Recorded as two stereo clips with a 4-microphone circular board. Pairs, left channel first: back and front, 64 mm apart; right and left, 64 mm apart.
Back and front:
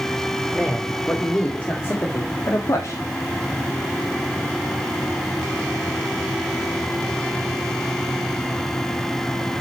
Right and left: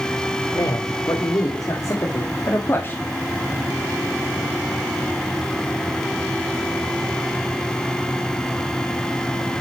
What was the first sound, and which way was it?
A man speaking, 105° right.